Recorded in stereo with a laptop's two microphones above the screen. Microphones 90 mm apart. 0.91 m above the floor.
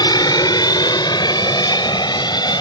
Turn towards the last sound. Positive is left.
turn(degrees=55)  # may be behind; listen again after turning